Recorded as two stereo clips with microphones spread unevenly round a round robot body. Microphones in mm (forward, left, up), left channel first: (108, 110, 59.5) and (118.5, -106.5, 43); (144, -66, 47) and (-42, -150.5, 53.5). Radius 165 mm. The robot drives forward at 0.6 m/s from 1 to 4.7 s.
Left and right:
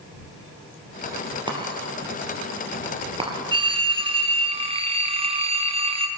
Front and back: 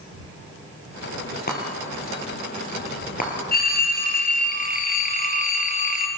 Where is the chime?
20° right, 6 m.